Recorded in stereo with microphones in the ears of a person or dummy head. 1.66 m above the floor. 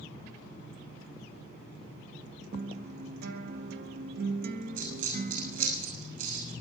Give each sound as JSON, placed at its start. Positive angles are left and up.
{"t": 2.5, "sound": "a guitar", "side_deg": -55, "distance_m": 0.9}
{"t": 4.8, "sound": "a dropped coin", "side_deg": -50, "distance_m": 5.5}